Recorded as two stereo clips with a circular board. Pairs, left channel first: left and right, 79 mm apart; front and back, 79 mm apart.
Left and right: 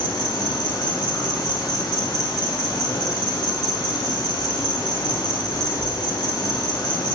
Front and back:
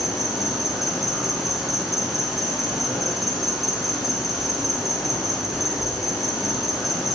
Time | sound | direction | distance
0.0 | an insect | 95° left | 0.8 m